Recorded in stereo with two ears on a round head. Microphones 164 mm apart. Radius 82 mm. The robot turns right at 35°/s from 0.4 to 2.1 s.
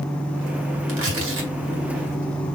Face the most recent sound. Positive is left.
turn(degrees=-55)  # may be behind; listen again after turning